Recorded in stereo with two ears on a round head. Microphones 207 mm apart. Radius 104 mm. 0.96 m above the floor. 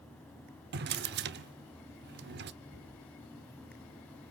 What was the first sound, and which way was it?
A drawer, 45° right (ahead or behind).